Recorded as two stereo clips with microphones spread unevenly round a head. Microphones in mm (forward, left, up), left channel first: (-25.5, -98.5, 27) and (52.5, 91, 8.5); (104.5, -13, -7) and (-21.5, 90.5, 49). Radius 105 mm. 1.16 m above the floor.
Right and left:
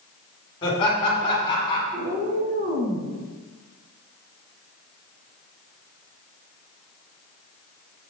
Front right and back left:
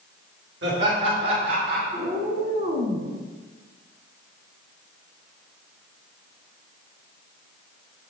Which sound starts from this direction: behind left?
A cat meowing, at 1.9 s.